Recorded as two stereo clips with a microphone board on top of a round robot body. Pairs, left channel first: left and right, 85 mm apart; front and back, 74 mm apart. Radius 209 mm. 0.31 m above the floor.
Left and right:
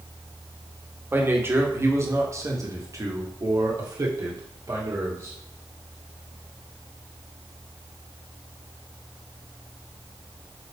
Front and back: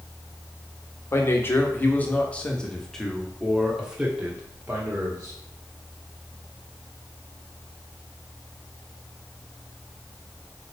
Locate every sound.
1.1 s a man speaking: 40° right, 2.0 m; by 5.3 s 125° right, 2.5 m